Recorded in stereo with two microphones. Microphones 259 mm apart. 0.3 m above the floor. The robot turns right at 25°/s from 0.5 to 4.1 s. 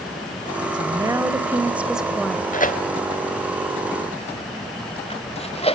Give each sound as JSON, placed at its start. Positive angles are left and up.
{"t": 0.7, "sound": "a woman speaking", "side_deg": -15, "distance_m": 1.2}
{"t": 2.5, "sound": "tearing paper", "side_deg": 35, "distance_m": 1.1}